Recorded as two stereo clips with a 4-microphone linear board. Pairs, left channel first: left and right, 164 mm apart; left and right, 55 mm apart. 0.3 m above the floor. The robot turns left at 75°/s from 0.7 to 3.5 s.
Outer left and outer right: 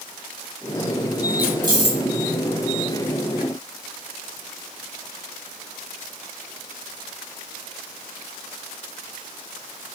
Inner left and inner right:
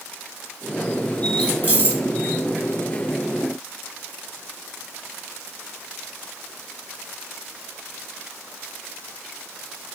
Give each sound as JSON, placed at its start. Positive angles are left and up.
{"t": 1.4, "sound": "keys jangling", "side_deg": -15, "distance_m": 1.9}